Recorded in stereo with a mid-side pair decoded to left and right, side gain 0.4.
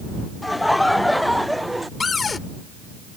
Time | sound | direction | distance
0.4 | laughter | 10° left | ?
2.0 | a cupboard door | 40° left | ?